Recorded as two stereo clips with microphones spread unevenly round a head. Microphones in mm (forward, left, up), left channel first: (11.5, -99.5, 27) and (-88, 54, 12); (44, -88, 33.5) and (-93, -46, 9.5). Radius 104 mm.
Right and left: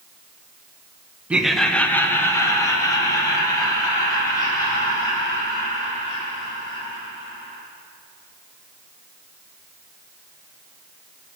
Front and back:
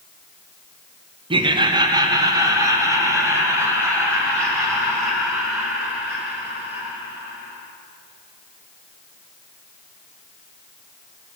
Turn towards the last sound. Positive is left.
turn(degrees=-125)